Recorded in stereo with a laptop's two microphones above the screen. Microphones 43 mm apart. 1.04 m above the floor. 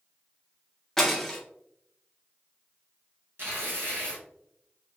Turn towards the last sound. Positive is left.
turn(degrees=-60)  # may be behind; listen again after turning